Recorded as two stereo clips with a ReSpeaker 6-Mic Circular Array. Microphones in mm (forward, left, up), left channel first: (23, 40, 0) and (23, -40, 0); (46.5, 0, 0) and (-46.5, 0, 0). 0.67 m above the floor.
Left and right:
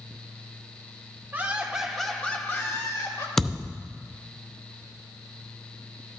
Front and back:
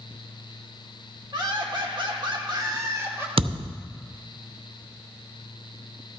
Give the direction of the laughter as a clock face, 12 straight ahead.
5 o'clock.